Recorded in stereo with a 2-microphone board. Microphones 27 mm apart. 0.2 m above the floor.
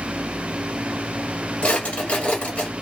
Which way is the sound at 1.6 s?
50° left (ahead or behind).